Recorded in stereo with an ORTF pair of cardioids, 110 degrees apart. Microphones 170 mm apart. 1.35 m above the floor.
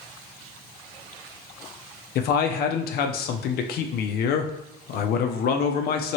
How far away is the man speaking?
About 0.6 m.